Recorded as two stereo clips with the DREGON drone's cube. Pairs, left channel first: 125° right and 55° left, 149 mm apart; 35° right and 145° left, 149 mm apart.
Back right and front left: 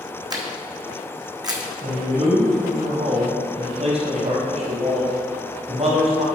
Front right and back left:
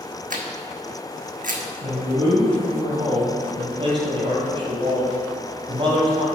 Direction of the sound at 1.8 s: 95° left.